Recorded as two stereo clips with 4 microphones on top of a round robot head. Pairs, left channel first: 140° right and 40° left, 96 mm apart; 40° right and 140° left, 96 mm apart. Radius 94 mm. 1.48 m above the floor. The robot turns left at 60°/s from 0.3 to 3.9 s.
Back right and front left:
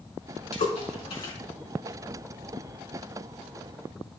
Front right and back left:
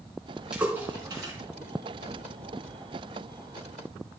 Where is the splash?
140° right, 5 m; by 1.3 s 170° left, 5 m.